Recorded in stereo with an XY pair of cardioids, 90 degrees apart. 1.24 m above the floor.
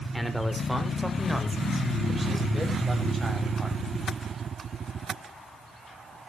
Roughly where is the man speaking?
Ahead.